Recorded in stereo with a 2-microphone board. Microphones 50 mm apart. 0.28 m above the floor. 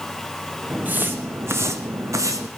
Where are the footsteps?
30° right (ahead or behind), 1.4 m; by 2.5 s 80° right, 1.3 m.